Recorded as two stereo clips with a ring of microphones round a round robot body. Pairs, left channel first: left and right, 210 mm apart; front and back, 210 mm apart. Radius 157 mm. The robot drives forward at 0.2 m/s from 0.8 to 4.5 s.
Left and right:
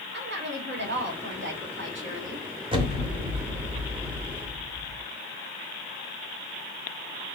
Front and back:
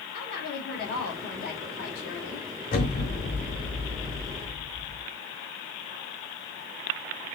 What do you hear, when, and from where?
0.1 s a woman speaking: 55° right, 1.9 m; by 2.5 s 65° right, 1.7 m
2.7 s an explosion: 35° right, 0.8 m; by 5.0 s 80° right, 0.7 m